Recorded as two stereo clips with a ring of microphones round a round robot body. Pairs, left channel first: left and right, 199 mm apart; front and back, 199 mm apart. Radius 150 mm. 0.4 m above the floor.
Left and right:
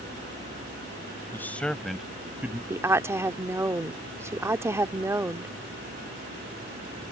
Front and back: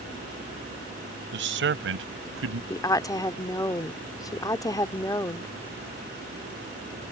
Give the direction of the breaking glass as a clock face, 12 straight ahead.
I don't hear breaking glass.